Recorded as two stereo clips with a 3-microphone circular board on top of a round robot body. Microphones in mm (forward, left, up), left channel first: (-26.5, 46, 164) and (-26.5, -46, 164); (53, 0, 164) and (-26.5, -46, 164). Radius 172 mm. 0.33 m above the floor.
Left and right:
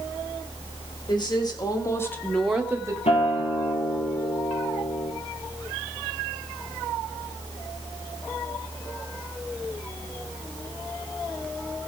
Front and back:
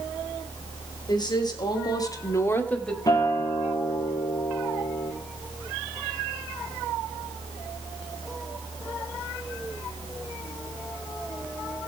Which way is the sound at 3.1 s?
85° left.